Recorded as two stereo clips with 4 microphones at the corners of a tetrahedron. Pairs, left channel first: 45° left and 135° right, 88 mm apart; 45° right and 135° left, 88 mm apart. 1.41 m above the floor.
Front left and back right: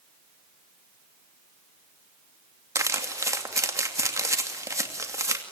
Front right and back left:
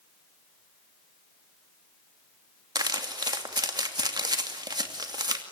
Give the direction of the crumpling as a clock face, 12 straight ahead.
6 o'clock.